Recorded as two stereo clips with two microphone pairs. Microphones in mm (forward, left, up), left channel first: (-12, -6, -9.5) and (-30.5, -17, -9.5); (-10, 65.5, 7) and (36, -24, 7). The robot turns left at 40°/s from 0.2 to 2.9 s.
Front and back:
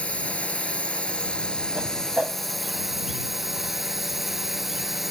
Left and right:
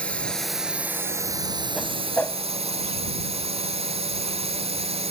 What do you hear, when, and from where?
0.0 s a drone: 40° left; by 5.1 s 70° right
1.8 s a whoosh: 155° right; by 2.4 s straight behind